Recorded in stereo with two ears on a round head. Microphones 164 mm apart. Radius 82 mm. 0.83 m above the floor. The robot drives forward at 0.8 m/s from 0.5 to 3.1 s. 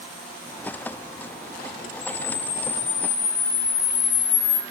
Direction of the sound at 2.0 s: 50° left (ahead or behind).